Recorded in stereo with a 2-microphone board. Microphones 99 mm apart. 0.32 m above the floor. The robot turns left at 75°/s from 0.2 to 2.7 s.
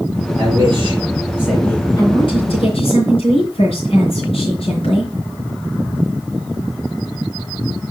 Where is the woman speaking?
140° left, 4 m; by 5.1 s 85° left, 4 m.